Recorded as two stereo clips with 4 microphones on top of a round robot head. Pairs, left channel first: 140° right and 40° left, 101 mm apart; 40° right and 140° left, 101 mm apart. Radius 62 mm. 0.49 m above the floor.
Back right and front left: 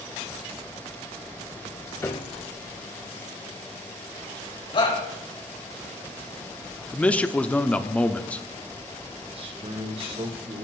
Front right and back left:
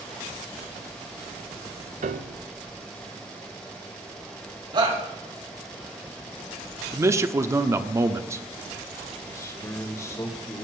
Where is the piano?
150° left, 0.7 m.